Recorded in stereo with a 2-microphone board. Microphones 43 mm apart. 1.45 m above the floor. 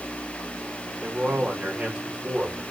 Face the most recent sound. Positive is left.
turn(degrees=-35)  # may be behind; listen again after turning